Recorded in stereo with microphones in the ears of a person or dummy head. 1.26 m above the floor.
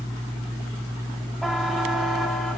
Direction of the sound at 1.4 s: Centre (ahead or behind).